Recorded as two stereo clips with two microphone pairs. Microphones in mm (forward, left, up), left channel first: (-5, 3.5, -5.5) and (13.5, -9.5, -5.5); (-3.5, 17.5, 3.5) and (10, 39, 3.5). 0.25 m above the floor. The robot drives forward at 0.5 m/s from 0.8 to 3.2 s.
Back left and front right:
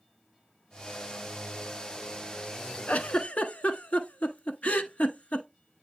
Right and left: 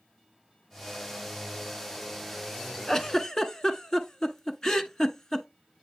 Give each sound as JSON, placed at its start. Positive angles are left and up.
{"t": 2.9, "sound": "a giggle", "azimuth_deg": 155, "distance_m": 0.5}